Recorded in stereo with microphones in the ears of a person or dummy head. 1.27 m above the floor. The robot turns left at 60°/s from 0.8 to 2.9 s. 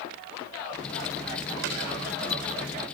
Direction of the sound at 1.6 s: 70° right (ahead or behind).